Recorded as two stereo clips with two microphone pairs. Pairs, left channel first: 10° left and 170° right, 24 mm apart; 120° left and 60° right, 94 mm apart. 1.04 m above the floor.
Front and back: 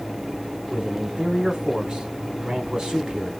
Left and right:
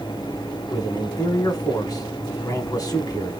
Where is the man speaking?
145° left, 1.1 m.